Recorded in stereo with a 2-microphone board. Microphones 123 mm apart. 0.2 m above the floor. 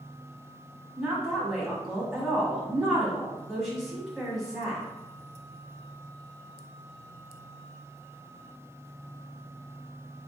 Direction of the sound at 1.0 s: Centre (ahead or behind).